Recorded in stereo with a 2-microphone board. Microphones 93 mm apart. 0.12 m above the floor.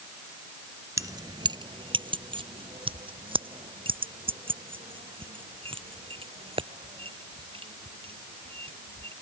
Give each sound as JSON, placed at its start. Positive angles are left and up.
{"t": 1.0, "sound": "keys jangling", "side_deg": -35}